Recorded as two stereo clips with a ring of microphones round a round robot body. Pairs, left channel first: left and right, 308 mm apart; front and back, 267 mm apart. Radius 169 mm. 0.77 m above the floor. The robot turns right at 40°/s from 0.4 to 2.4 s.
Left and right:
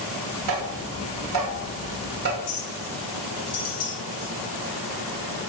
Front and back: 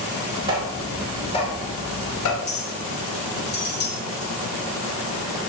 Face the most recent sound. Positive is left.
turn(degrees=50)